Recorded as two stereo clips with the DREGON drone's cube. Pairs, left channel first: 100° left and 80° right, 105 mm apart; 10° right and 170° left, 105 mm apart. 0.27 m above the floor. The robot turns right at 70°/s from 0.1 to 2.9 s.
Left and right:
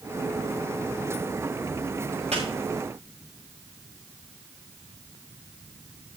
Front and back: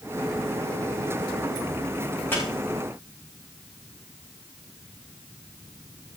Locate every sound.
2.3 s a squeak: 80° right, 7.5 m; by 2.4 s 70° right, 7.5 m